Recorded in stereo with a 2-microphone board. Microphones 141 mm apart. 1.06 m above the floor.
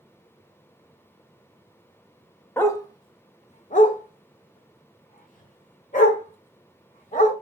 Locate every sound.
2.6 s a dog barking: 15° left (ahead or behind), 0.8 m; by 7.3 s 55° left (ahead or behind), 2.5 m